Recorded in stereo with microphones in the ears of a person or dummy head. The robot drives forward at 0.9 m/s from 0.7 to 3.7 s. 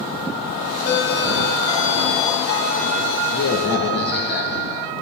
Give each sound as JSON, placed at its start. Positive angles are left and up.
{"t": 0.9, "sound": "a doorbell", "side_deg": 70, "distance_m": 2.5}